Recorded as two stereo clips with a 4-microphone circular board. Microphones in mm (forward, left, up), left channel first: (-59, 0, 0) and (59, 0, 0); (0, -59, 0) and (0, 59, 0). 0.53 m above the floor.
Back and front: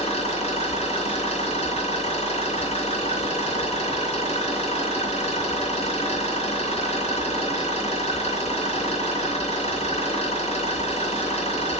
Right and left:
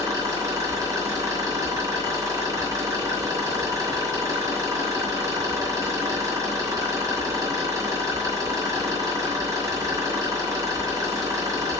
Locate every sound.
0.0 s an engine running: 155° left, 3.5 m